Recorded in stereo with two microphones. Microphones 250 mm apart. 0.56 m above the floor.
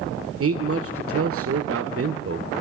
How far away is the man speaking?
About 1.9 m.